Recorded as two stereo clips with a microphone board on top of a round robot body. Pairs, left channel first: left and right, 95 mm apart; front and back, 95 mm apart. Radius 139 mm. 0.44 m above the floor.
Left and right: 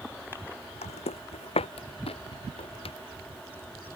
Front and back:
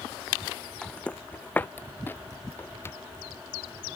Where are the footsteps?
80° left; by 3.0 s 65° left.